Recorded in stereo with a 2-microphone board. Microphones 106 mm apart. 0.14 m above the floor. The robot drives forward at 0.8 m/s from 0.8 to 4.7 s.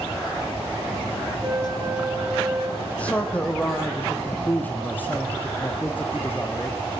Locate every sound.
1.4 s a flute: 25° right (ahead or behind), 6.5 m; by 2.7 s 30° right (ahead or behind), 5.5 m
2.8 s a man speaking: 15° left (ahead or behind), 5.5 m; by 6.8 s 20° left (ahead or behind), 4 m